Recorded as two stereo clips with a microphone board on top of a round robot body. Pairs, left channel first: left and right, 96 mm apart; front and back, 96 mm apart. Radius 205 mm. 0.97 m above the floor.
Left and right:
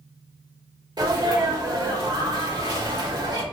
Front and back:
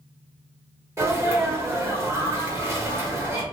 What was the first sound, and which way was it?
A sneeze, 125° right.